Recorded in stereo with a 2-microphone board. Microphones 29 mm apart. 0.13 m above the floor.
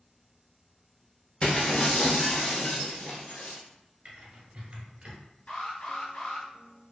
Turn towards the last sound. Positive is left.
turn(degrees=45)  # may be behind; listen again after turning